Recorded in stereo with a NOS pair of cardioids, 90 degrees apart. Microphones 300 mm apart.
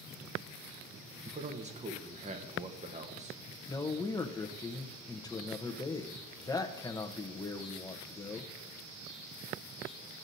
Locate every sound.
1.2 s a man speaking: 25° right, 1.2 m
3.7 s a man speaking: 15° left, 0.9 m